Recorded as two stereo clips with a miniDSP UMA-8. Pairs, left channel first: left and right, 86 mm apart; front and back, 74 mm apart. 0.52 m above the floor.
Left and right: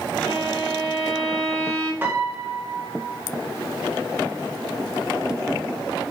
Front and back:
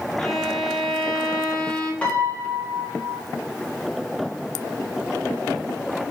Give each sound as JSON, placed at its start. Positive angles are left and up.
{"t": 0.2, "sound": "a violin", "azimuth_deg": 60, "distance_m": 1.1}
{"t": 2.0, "sound": "a piano", "azimuth_deg": -55, "distance_m": 1.1}